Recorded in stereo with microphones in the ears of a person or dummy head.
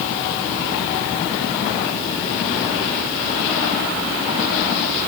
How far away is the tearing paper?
No tearing paper in this recording.